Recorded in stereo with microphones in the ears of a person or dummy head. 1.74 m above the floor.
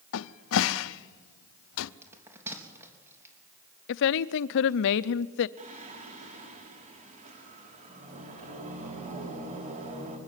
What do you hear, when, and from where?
0.1 s a cupboard door: 75° left (ahead or behind), 0.7 m
2.0 s a bell: 15° right (ahead or behind), 3.5 m
3.9 s a woman speaking: 65° left (ahead or behind), 0.6 m
5.6 s singing: 40° right (ahead or behind), 4.5 m